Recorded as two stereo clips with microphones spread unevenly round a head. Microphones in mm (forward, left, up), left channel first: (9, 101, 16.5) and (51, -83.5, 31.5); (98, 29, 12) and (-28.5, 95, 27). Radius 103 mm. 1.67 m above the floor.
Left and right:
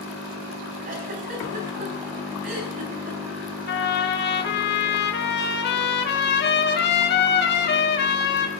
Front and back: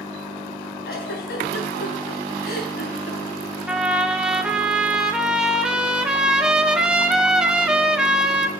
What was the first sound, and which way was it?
A giggle, 40° right.